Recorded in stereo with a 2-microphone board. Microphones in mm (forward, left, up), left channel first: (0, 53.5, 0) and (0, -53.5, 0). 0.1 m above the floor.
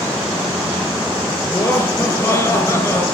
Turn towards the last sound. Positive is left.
turn(degrees=25)  # may be behind; listen again after turning